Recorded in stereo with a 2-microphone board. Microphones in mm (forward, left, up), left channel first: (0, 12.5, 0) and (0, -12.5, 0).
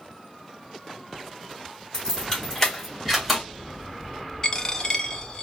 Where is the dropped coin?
30° left (ahead or behind), 0.5 m.